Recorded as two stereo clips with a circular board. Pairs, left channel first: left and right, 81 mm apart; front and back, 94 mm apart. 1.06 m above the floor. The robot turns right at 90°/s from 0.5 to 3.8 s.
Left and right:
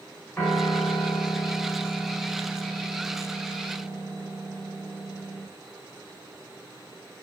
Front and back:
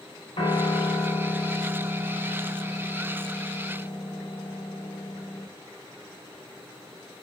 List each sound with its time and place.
0.4 s a piano: 25° left, 2.5 m; by 5.5 s 40° right, 2.5 m